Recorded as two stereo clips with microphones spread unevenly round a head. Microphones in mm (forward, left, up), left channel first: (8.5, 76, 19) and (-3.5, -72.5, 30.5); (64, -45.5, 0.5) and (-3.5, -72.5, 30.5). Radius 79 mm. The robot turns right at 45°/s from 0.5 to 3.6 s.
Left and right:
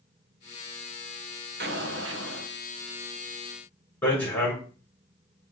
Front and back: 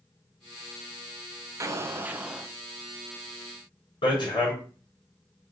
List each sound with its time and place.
1.6 s an explosion: 120° right, 1.4 m; by 2.5 s 80° right, 1.4 m
4.0 s hammering: 5° left, 6.5 m